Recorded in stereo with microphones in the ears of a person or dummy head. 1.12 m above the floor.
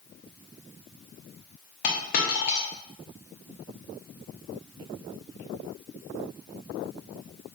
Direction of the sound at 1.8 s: 45° left (ahead or behind).